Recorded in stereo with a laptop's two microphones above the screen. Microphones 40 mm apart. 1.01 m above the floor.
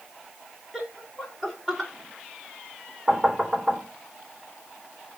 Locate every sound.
0.7 s laughter: 10° right (ahead or behind), 3 m; by 1.9 s 10° left (ahead or behind), 4 m
3.1 s knocking: 10° right (ahead or behind), 3 m